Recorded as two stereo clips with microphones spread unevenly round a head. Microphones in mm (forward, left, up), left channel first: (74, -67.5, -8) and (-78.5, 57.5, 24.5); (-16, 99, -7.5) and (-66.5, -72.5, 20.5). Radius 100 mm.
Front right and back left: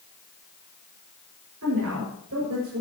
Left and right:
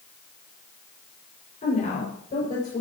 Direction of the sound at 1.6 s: 125° left.